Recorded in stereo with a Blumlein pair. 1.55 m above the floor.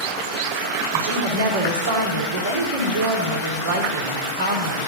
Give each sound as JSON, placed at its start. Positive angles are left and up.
{"t": 0.9, "sound": "a woman speaking", "azimuth_deg": -65, "distance_m": 3.5}